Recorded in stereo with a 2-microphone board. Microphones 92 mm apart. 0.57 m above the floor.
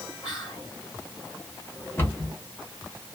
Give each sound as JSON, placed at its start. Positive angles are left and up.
{"t": 0.2, "sound": "whispering", "side_deg": 40, "distance_m": 1.3}
{"t": 2.0, "sound": "a cupboard door", "side_deg": 25, "distance_m": 1.3}